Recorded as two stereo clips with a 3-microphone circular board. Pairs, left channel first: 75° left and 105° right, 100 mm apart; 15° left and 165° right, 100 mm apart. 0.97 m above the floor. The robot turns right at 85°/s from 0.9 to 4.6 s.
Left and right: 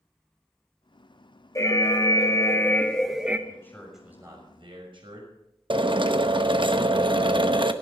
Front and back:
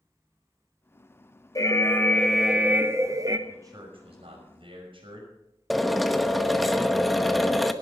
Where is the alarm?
35° left, 1.0 m; by 3.4 s 170° right, 1.0 m.